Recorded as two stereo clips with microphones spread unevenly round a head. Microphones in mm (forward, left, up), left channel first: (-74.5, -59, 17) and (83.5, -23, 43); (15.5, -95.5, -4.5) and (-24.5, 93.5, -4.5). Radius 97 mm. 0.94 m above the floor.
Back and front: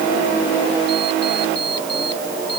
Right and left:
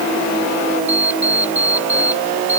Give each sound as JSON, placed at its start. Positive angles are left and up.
{"t": 0.9, "sound": "an alarm clock", "azimuth_deg": -175}